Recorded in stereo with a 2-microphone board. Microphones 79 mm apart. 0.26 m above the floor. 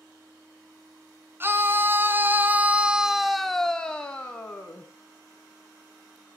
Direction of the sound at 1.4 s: 30° right (ahead or behind).